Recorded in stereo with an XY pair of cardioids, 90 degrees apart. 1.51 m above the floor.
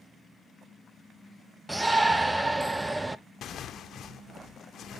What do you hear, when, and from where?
1.7 s a shout: 20° right, 0.6 m
3.4 s tearing paper: 70° left, 0.6 m